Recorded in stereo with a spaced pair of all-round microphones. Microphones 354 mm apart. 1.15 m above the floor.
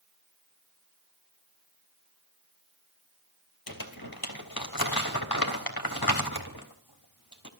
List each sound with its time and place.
3.7 s crumpling: 80° left, 3.5 m